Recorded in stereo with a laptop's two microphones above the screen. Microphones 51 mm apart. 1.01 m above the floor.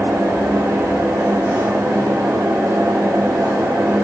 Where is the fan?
65° right (ahead or behind), 1.2 m.